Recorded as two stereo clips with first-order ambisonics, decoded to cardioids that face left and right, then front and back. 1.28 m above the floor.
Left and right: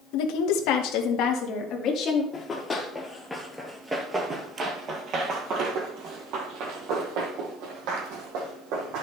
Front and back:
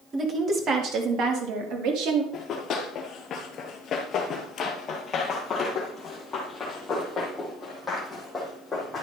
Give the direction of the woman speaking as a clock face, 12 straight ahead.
9 o'clock.